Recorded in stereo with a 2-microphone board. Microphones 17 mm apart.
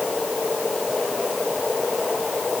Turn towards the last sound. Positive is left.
No sound to turn to.